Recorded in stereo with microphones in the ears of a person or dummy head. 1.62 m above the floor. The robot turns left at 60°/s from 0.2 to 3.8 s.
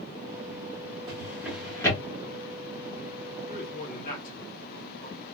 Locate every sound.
1.1 s a drawer: 25° right (ahead or behind), 1.9 m; by 2.0 s 25° left (ahead or behind), 1.9 m
3.5 s a man speaking: 70° left (ahead or behind), 1.6 m; by 5.2 s 55° left (ahead or behind), 1.6 m